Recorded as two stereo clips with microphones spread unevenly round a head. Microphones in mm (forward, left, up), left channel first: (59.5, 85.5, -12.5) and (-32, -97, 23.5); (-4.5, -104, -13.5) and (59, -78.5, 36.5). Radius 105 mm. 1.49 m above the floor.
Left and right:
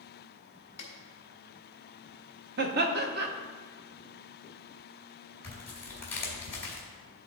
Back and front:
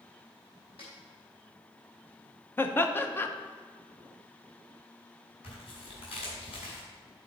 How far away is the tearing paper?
About 2.5 m.